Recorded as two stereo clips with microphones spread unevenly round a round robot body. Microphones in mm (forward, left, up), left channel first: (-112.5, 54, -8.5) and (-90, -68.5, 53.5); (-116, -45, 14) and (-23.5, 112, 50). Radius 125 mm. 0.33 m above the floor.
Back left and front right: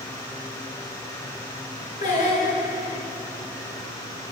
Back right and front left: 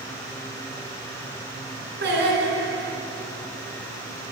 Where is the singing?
85° left, 2 m.